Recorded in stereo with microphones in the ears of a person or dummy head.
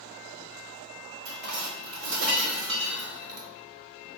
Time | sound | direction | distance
1.2 | dishes clattering | 85° right | 2.5 m